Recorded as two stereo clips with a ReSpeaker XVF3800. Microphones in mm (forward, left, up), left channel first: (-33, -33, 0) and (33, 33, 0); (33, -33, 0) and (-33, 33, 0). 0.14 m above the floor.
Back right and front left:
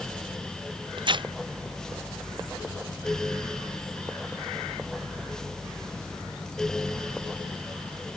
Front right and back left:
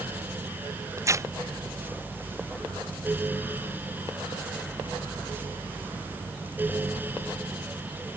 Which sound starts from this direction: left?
Tearing paper, at 1.0 s.